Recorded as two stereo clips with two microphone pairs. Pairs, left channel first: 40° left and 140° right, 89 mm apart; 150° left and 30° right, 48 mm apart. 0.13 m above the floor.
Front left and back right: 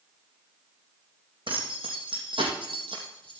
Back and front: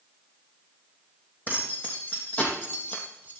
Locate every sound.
1.5 s keys jangling: 155° right, 5 m; by 3.4 s 150° right, 2.5 m